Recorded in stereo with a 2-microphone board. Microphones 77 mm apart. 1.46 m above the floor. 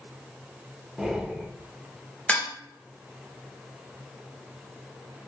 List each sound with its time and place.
1.0 s breathing: 5° right (ahead or behind), 0.5 m
2.3 s dishes clattering: 15° left (ahead or behind), 0.8 m